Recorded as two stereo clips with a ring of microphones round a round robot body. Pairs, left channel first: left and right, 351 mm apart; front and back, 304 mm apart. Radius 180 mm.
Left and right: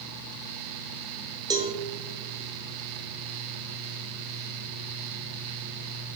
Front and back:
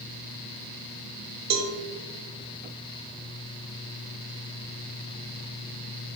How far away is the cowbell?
About 0.9 m.